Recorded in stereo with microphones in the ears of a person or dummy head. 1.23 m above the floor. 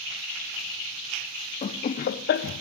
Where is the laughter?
25° left (ahead or behind), 0.6 m; by 2.6 s 40° left (ahead or behind), 0.7 m.